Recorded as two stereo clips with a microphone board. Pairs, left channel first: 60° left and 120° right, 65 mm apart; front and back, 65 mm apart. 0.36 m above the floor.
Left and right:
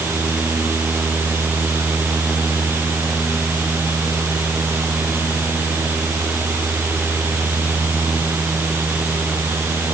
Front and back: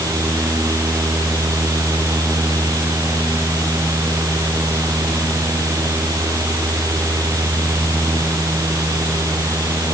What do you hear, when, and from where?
Only background noise.